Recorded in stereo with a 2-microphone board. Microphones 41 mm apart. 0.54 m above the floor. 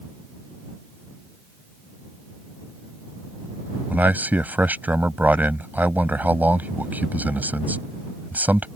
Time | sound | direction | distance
3.9 | a man speaking | 45° right (ahead or behind) | ?